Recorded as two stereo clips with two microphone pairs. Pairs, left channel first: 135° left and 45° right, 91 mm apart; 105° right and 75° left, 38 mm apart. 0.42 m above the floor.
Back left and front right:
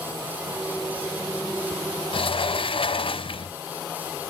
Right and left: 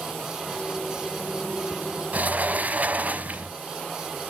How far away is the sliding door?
About 0.9 m.